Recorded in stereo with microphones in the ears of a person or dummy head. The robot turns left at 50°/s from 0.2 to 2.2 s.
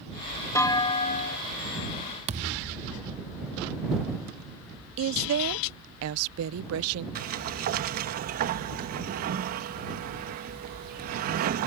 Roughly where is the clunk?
Behind.